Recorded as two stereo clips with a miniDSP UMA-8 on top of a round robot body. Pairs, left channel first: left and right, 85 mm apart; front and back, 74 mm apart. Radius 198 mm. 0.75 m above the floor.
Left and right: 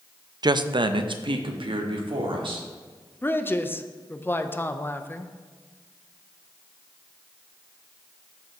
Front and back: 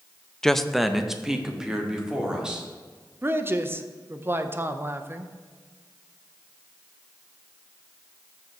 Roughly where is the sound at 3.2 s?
Behind left.